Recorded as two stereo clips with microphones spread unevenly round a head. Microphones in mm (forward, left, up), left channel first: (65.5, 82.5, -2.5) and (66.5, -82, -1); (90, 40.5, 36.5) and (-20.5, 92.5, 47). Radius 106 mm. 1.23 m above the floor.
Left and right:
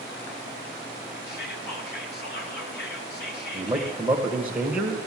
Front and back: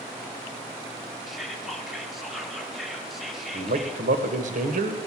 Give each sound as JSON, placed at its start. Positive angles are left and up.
{"t": 1.3, "sound": "whispering", "azimuth_deg": 65, "distance_m": 2.5}
{"t": 3.5, "sound": "a man speaking", "azimuth_deg": -175, "distance_m": 1.4}